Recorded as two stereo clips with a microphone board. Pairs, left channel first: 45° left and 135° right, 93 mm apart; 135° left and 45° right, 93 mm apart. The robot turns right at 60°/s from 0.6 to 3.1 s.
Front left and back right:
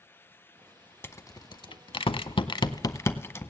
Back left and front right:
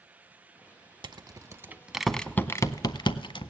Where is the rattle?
15° right, 0.5 m; by 3.5 s 105° left, 0.5 m.